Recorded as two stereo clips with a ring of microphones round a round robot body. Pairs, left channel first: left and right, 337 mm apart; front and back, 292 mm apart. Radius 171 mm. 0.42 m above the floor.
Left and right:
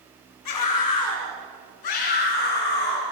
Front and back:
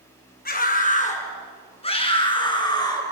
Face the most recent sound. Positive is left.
turn(degrees=75)